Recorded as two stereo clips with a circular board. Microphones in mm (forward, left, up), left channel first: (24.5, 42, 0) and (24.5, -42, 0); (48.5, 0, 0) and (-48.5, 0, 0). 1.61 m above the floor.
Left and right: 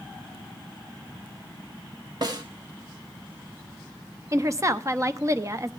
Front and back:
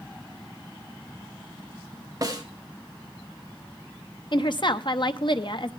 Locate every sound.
2.2 s a snare drum: 130° right, 1.8 m
4.3 s a woman speaking: 35° right, 0.9 m